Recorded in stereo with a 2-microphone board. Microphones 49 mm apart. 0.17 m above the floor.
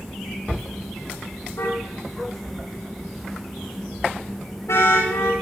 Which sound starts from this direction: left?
A car horn, at 1.6 s.